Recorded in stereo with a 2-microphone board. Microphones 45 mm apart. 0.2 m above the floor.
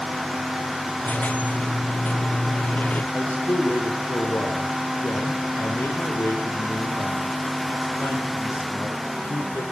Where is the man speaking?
70° left (ahead or behind), 7 m.